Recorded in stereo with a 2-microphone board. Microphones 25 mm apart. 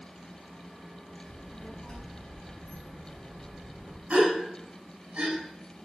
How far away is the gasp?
About 6 m.